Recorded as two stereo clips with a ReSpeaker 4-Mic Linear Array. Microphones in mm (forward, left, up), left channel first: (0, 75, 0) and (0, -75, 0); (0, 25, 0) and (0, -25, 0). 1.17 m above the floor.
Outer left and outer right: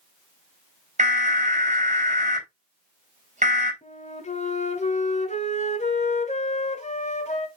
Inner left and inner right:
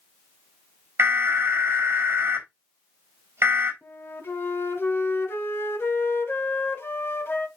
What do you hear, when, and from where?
1.0 s an alarm: 50° right (ahead or behind), 3.5 m
3.8 s a flute: 50° left (ahead or behind), 1.5 m